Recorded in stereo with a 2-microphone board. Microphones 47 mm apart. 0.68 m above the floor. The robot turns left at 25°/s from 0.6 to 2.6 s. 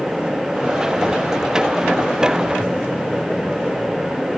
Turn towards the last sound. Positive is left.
No sound to turn to.